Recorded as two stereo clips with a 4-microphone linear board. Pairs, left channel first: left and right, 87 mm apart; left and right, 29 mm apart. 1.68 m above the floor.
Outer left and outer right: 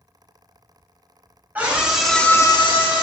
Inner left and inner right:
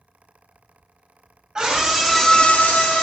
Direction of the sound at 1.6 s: 20° right (ahead or behind).